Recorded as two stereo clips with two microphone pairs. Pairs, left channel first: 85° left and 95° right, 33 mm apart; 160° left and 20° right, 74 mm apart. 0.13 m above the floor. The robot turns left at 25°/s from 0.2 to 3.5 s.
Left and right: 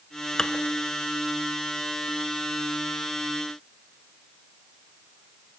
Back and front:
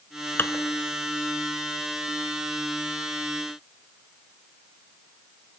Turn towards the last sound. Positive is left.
turn(degrees=65)